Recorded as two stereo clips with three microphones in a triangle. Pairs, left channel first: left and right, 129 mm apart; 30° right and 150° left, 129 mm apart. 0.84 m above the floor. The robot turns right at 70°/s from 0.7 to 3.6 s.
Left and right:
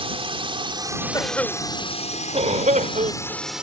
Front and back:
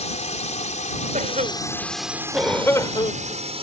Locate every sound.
0.0 s a drone: 50° right; by 3.6 s 175° right
1.1 s a cough: 150° left; by 3.4 s 50° right